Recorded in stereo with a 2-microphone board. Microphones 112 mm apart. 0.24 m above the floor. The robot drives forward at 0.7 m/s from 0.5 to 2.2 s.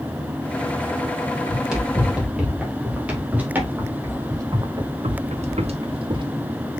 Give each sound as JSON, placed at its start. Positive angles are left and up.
{"t": 1.5, "sound": "running footsteps", "side_deg": -5, "distance_m": 3.5}